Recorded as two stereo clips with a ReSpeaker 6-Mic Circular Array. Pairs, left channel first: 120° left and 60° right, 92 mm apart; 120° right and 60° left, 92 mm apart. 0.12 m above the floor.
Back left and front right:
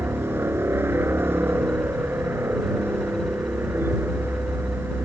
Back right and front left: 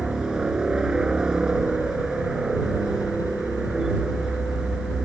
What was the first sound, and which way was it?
A helicopter, 15° right.